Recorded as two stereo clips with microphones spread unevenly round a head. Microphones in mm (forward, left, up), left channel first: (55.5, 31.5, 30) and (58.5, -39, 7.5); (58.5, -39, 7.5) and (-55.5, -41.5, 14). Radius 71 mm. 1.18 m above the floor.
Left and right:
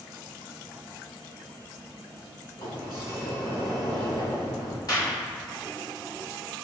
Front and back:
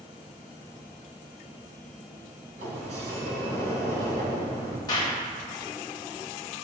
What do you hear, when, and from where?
2.6 s a sliding door: 140° left, 3 m
4.9 s a clap: 65° left, 3 m